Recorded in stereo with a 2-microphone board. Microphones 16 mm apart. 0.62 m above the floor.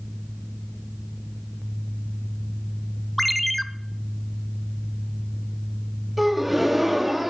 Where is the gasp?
10° right (ahead or behind), 1.2 m.